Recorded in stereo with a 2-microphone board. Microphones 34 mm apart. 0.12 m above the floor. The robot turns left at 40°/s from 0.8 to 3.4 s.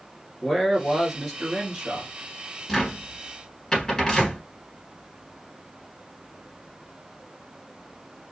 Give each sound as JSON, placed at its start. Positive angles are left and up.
{"t": 0.4, "sound": "a man speaking", "azimuth_deg": -5, "distance_m": 1.5}
{"t": 2.7, "sound": "a cupboard door", "side_deg": 5, "distance_m": 1.5}